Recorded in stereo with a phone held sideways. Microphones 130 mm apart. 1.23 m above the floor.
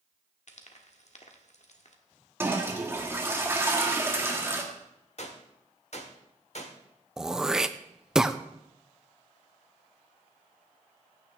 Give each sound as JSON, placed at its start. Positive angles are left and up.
{"t": 0.5, "sound": "frying", "side_deg": 60, "distance_m": 1.4}
{"t": 2.4, "sound": "a toilet flushing", "side_deg": -20, "distance_m": 1.7}
{"t": 5.2, "sound": "a gunshot", "side_deg": 55, "distance_m": 1.4}
{"t": 7.2, "sound": "throat clearing", "side_deg": -5, "distance_m": 0.5}